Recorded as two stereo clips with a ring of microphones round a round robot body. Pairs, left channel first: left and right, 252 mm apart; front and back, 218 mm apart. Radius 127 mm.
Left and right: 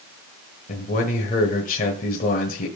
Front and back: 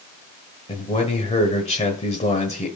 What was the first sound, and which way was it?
A man speaking, 45° left.